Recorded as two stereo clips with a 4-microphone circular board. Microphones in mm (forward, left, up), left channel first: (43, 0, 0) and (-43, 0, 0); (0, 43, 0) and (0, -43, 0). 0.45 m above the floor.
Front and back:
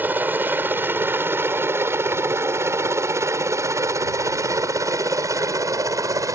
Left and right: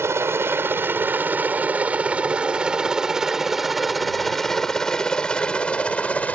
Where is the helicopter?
125° right; by 6.4 s 155° left.